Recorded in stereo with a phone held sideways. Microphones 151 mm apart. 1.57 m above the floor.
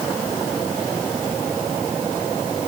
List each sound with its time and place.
Only background noise.